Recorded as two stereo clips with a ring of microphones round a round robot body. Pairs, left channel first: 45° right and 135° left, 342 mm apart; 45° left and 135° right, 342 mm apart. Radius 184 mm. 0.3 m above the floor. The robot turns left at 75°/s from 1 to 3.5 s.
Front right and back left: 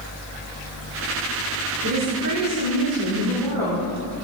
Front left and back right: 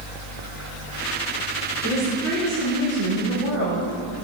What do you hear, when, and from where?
1.8 s a woman speaking: 165° left, 3.5 m; by 3.9 s 40° left, 3.5 m